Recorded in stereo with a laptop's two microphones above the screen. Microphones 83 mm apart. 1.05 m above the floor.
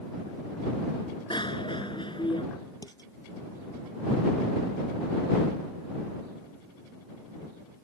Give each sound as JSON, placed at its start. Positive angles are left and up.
{"t": 1.3, "sound": "a bicycle bell", "side_deg": 70}
{"t": 2.8, "sound": "dishes clattering", "side_deg": 50}